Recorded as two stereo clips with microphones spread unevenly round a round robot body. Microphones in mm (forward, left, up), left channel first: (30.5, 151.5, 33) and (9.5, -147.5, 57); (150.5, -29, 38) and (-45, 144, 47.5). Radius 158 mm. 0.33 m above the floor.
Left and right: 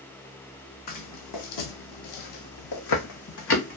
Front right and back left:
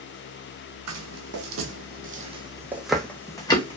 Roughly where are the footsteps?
Behind left.